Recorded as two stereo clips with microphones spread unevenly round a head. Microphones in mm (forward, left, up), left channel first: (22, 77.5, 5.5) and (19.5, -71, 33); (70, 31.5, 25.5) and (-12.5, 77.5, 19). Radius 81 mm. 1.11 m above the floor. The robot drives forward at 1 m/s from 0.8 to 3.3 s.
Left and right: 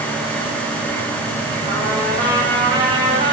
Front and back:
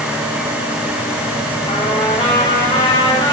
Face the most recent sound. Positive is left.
turn(degrees=-35)